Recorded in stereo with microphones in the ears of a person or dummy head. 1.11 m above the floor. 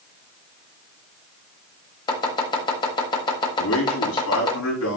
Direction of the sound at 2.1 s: 25° left (ahead or behind).